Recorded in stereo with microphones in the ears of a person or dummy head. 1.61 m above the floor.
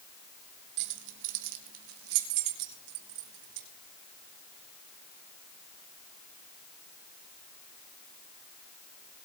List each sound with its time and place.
0.8 s keys jangling: 60° right (ahead or behind), 1.6 m; by 3.7 s 75° right (ahead or behind), 4.5 m